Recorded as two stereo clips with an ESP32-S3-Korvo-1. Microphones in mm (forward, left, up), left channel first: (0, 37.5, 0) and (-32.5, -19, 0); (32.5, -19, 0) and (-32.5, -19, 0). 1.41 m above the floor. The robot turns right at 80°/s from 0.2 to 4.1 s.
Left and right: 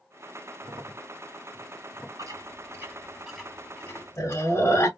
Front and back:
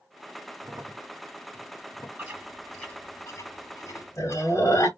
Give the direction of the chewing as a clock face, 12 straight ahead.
4 o'clock.